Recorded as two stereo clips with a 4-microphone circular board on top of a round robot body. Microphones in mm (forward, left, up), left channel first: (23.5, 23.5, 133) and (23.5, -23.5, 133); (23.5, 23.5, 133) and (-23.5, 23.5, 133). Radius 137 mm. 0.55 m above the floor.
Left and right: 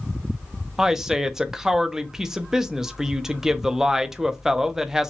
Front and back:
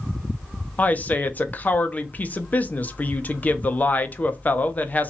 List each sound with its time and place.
0.8 s a woman speaking: 15° right, 1.0 m